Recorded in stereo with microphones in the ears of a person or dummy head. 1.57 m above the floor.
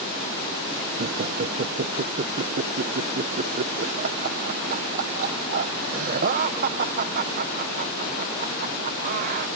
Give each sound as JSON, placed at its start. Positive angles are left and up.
{"t": 1.0, "sound": "laughter", "side_deg": -40}